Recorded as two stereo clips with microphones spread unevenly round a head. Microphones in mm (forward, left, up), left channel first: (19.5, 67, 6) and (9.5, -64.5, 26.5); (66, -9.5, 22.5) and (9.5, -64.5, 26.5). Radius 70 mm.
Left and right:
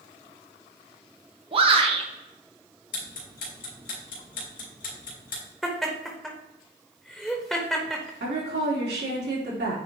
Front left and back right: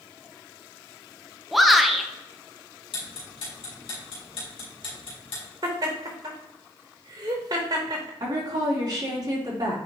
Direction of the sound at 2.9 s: 65° left.